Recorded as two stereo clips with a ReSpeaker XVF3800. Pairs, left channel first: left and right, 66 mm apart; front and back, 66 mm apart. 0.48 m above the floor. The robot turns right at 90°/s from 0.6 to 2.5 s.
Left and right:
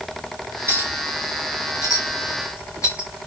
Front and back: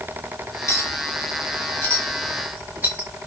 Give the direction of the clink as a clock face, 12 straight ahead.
1 o'clock.